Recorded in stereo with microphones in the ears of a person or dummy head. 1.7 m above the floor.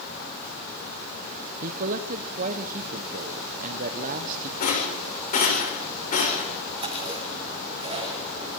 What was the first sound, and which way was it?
A man speaking, 50° right (ahead or behind).